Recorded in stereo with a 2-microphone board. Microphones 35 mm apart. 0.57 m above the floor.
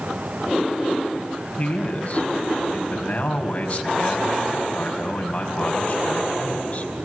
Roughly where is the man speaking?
Left.